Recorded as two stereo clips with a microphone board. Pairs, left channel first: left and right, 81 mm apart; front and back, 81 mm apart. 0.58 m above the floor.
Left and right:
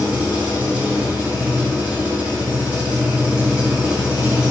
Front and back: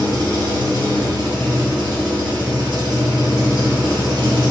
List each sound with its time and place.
0.0 s an engine running: 165° right, 2.5 m